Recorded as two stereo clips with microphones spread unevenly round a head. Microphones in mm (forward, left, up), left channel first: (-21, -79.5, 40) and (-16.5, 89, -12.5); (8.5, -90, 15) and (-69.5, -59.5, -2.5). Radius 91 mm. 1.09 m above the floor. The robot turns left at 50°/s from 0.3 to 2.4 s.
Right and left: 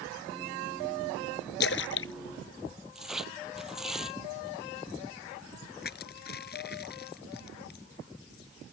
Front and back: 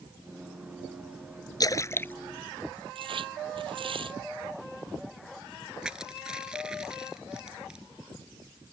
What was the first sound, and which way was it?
A splash, 60° right.